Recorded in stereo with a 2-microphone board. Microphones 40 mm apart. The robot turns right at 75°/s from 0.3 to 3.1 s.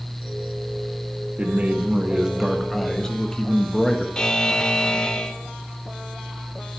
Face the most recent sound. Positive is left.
turn(degrees=20)  # may be behind; listen again after turning